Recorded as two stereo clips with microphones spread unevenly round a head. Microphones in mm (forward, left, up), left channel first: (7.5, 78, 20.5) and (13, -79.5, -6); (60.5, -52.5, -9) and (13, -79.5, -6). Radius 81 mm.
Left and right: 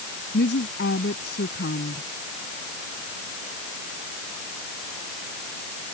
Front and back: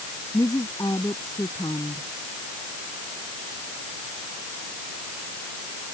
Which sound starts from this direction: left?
A woman speaking, at 0.3 s.